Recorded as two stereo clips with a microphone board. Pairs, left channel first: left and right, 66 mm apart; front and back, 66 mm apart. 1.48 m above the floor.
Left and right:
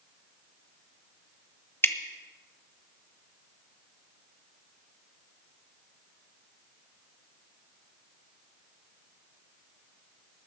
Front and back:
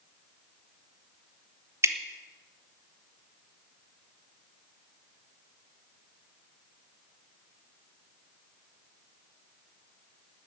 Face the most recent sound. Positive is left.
turn(degrees=140)